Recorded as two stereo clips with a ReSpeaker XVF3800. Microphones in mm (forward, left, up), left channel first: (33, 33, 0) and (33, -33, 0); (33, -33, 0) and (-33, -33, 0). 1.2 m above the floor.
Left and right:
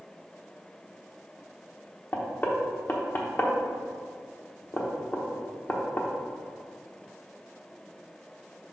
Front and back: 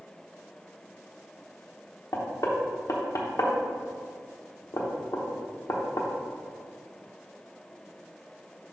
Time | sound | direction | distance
2.1 | knocking | 30° left | 1.0 m